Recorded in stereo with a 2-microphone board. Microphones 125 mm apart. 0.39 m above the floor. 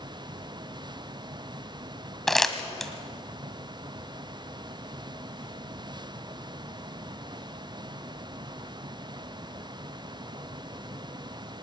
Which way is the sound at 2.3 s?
Centre (ahead or behind).